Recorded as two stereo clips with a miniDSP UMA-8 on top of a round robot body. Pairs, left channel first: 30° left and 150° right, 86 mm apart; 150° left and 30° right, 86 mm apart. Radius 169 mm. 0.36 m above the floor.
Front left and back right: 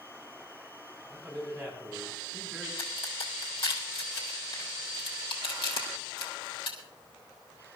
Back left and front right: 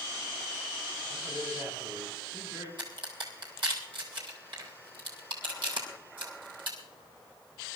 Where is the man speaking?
90° right, 7.5 m.